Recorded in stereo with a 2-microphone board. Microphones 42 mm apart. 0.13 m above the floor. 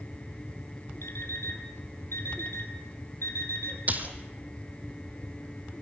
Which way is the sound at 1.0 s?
70° left (ahead or behind).